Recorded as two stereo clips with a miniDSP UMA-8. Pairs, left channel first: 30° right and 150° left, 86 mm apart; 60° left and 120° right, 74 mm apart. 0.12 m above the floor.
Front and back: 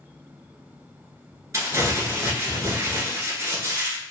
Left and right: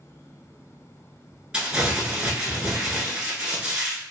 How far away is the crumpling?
About 0.8 m.